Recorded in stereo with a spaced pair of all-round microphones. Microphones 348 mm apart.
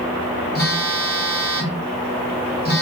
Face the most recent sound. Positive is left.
turn(degrees=25)  # may be behind; listen again after turning